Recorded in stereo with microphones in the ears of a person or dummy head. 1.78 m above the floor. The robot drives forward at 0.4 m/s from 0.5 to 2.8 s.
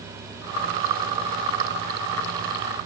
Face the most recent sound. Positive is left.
No sound to turn to.